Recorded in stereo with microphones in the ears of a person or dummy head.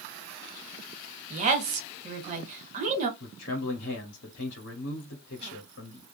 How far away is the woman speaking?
About 1.4 m.